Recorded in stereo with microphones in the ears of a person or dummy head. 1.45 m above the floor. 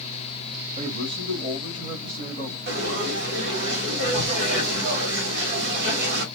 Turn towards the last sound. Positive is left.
turn(degrees=-65)  # may be behind; listen again after turning